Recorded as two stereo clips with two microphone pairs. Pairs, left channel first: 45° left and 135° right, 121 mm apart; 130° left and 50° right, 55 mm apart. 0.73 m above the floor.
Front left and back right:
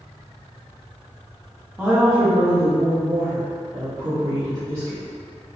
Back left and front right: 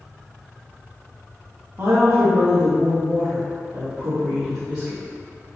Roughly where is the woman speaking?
Ahead right.